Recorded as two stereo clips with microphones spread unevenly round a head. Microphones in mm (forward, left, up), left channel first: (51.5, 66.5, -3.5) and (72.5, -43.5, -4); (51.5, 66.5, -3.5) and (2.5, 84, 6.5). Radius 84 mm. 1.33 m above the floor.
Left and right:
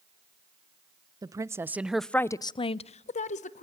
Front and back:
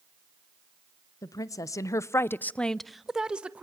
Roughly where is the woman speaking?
Ahead.